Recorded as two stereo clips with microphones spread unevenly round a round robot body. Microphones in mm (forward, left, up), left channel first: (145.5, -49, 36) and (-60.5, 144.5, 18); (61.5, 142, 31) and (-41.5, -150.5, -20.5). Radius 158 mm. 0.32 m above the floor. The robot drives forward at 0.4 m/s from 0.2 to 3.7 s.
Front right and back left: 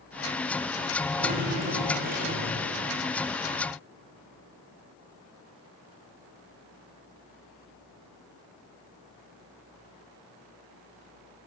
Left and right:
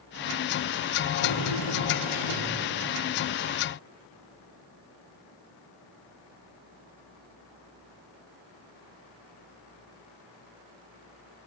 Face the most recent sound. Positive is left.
turn(degrees=80)